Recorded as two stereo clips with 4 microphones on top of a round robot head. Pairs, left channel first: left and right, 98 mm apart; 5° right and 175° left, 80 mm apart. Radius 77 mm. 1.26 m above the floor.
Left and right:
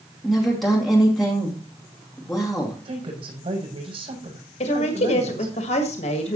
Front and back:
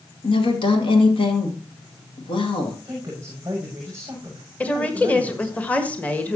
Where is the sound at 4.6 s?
70° left, 1.4 m.